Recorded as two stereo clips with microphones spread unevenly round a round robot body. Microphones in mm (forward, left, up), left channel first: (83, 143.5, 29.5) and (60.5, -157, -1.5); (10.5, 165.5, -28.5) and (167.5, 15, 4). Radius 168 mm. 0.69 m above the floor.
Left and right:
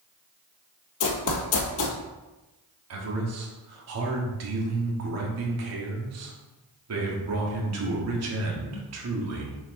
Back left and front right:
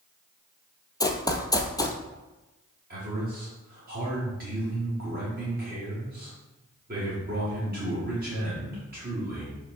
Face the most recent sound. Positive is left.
turn(degrees=-105)